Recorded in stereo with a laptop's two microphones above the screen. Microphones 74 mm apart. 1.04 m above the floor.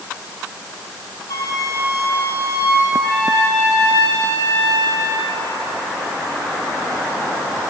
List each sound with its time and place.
1.3 s a flute: 40° left (ahead or behind), 2.5 m
2.9 s a trumpet: 60° right (ahead or behind), 9.5 m